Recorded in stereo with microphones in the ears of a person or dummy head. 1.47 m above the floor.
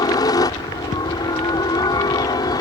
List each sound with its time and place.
0.0 s a helicopter: 25° left (ahead or behind)